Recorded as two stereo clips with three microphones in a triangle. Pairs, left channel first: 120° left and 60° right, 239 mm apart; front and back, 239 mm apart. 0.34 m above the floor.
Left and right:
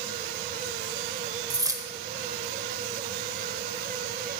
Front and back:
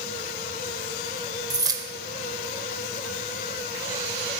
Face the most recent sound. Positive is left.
turn(degrees=-120)